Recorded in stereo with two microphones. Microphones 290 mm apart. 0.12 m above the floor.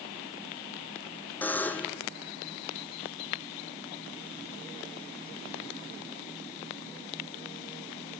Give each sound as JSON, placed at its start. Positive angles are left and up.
{"t": 1.4, "sound": "a buzzer", "side_deg": 5, "distance_m": 1.6}